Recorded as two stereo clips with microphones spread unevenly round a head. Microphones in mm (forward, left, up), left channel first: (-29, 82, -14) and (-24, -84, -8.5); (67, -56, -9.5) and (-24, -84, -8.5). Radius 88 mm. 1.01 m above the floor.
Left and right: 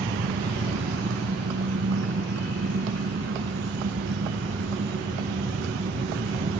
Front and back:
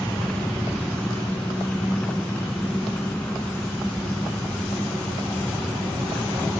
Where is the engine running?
60° right.